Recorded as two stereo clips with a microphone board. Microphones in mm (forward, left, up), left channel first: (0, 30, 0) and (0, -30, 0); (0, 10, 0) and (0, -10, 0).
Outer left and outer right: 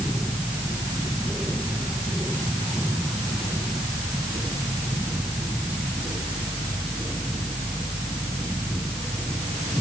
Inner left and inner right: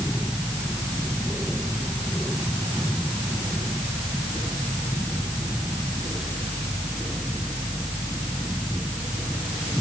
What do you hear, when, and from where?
Only background noise.